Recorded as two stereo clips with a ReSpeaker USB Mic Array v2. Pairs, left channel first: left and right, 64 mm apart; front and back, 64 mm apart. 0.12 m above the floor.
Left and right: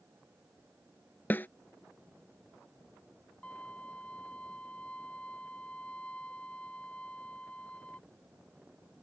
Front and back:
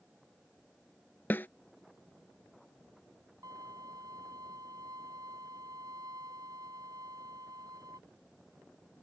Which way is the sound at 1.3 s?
45° left.